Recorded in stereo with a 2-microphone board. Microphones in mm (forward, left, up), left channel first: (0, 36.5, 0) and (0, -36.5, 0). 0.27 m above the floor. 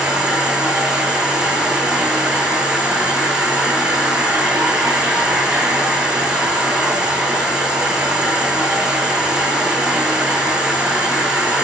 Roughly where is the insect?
Centre.